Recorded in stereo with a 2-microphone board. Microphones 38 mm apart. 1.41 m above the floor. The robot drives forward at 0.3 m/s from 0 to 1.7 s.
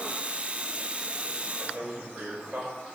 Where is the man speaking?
60° right (ahead or behind), 8 m.